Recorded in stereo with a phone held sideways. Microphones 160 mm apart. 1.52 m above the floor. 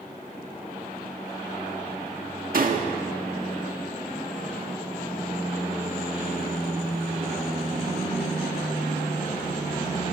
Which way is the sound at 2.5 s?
60° right (ahead or behind).